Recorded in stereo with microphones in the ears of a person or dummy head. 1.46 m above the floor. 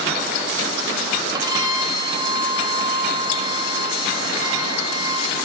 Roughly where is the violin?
Right.